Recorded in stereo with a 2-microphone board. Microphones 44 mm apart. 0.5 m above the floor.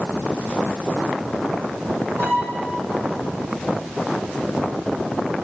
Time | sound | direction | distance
2.2 | a violin | 55° right (ahead or behind) | 4 m